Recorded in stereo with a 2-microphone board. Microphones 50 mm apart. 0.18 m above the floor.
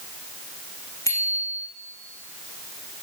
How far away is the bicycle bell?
About 9.5 m.